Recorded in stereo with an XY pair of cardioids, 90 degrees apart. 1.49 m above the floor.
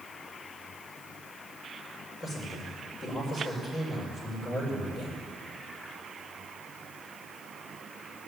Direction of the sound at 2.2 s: 55° left.